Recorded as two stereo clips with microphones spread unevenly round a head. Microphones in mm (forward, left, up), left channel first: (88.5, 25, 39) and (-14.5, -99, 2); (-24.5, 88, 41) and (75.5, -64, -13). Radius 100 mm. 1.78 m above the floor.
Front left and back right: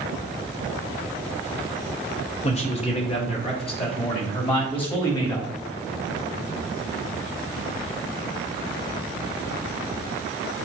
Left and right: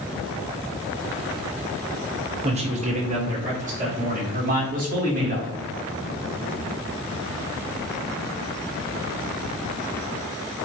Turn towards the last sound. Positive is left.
turn(degrees=-10)